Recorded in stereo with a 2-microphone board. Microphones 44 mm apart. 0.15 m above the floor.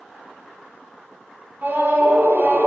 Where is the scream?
50° right (ahead or behind), 2.5 m.